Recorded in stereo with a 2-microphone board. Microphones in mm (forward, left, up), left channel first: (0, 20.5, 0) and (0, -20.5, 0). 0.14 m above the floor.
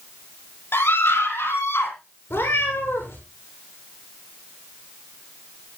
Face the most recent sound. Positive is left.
turn(degrees=80)